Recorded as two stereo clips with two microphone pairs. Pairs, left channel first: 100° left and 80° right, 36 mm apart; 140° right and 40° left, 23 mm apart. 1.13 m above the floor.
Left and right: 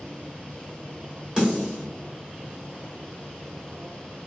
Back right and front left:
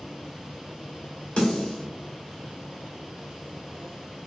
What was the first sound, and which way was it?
A snare drum, 145° right.